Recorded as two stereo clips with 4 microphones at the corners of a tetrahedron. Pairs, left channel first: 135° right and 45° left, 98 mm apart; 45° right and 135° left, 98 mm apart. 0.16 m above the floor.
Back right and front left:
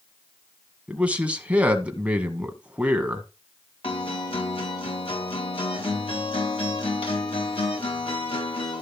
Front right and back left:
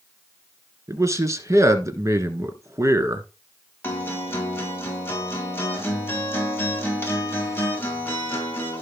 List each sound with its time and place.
0.9 s a man speaking: 110° left, 1.6 m
3.8 s a guitar: 110° right, 3.5 m